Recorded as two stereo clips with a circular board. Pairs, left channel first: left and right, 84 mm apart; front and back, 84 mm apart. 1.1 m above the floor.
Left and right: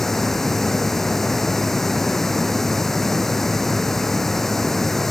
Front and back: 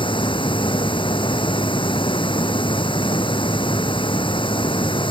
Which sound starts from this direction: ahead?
Running water, at 0.0 s.